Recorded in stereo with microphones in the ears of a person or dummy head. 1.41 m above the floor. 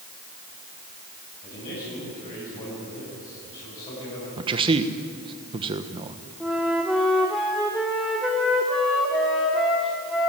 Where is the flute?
Centre (ahead or behind), 1.0 m.